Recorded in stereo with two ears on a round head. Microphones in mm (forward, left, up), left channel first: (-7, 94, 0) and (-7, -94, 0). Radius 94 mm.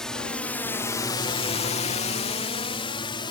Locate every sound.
0.0 s a drone: 5° left (ahead or behind); by 3.3 s 25° left (ahead or behind)